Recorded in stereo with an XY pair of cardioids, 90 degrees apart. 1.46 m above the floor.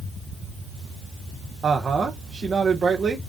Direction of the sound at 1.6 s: 45° right.